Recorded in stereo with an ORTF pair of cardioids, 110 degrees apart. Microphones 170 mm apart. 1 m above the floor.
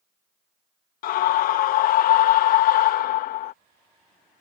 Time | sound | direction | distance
1.0 | a scream | 70° left | ?